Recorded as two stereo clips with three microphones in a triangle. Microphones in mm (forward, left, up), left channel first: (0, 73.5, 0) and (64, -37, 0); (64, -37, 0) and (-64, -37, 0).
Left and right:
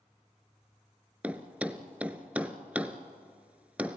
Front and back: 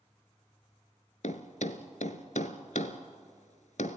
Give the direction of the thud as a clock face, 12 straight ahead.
11 o'clock.